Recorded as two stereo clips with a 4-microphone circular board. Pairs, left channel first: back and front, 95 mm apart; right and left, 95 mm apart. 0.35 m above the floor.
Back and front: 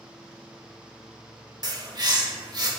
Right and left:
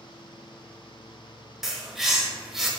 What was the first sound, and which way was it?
A bird, 5° left.